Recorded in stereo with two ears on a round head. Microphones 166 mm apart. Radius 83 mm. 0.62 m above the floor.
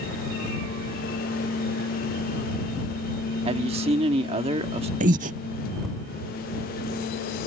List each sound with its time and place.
3.5 s a man speaking: 35° right (ahead or behind)
5.0 s breathing: 40° right (ahead or behind)